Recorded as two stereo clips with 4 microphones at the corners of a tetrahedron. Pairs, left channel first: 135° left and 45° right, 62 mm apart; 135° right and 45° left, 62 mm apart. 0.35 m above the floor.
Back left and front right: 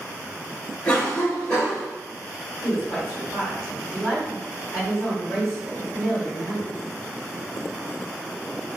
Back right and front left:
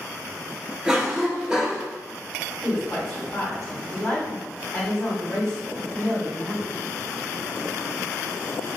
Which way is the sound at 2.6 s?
165° right.